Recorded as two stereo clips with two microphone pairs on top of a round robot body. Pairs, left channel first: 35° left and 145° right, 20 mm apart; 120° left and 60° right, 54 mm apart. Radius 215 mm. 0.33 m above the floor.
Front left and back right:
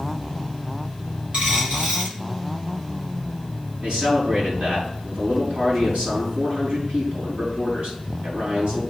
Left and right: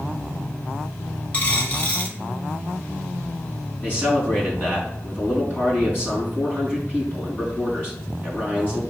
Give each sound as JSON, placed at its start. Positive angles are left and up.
{"t": 1.3, "sound": "a dropped coin", "azimuth_deg": 180, "distance_m": 1.6}
{"t": 3.8, "sound": "a man speaking", "azimuth_deg": 175, "distance_m": 4.5}